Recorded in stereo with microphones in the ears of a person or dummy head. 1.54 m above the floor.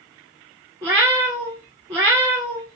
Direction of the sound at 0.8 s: 10° right (ahead or behind).